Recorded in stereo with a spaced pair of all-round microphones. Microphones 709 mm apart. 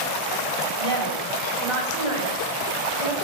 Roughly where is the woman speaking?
Right.